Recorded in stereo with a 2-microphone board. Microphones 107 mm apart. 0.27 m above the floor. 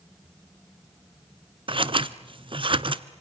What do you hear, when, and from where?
1.7 s scissors: 50° right (ahead or behind), 0.8 m